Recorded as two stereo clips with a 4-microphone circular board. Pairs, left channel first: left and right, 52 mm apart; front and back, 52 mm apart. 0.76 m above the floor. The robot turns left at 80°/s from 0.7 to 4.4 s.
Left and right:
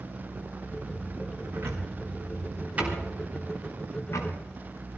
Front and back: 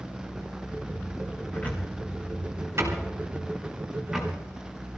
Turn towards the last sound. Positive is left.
turn(degrees=80)